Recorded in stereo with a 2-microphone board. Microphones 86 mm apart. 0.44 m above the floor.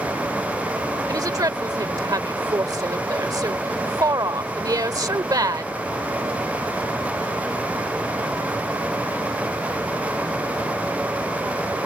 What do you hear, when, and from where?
1.1 s a woman speaking: 45° right (ahead or behind)